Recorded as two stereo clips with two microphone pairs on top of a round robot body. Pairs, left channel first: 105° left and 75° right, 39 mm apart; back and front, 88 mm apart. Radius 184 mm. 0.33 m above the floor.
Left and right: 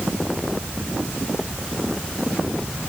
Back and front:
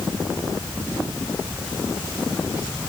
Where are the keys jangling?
No keys jangling in this recording.